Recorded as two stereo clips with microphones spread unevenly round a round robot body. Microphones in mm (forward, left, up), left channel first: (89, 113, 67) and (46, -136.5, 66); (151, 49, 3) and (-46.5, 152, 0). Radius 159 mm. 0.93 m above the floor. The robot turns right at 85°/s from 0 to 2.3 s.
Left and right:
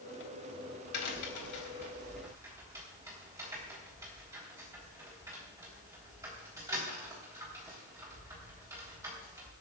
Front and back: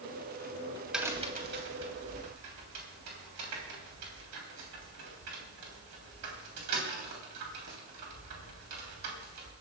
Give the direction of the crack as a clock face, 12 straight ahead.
10 o'clock.